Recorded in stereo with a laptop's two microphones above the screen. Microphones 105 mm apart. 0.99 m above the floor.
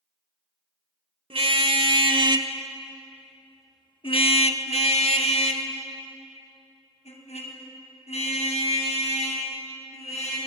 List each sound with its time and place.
1.3 s a car horn: 60° right (ahead or behind), 2 m; by 10.4 s 85° left, 7 m